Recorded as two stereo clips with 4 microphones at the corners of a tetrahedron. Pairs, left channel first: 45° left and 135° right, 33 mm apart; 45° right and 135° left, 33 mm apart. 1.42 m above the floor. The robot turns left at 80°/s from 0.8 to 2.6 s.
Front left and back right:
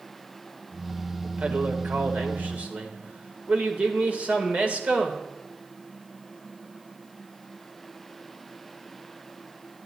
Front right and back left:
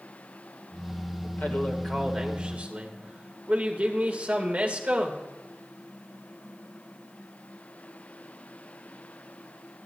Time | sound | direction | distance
1.2 | a man speaking | 70° right | 1.8 m